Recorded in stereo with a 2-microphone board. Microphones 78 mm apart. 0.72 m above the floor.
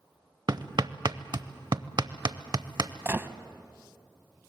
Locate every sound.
0.5 s hammering: 55° right (ahead or behind), 0.7 m
3.0 s a gunshot: 25° right (ahead or behind), 0.8 m